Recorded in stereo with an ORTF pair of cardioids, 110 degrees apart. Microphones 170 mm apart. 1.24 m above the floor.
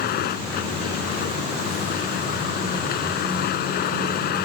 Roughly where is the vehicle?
Left.